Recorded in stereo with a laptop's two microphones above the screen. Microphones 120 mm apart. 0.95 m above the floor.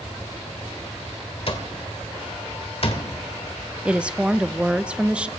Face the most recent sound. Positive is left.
turn(degrees=-10)  # may be behind; listen again after turning